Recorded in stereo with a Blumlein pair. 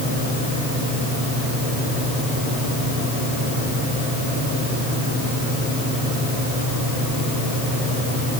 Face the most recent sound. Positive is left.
No sound to turn to.